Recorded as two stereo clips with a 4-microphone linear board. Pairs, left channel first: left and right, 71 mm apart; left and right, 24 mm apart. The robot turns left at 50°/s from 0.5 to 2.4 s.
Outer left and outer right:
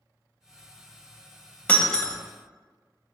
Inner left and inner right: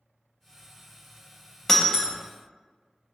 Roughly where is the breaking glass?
Left.